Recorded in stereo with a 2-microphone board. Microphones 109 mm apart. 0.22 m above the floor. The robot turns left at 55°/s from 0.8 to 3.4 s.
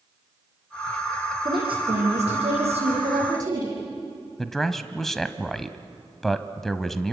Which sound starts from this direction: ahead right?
A woman speaking, at 1.4 s.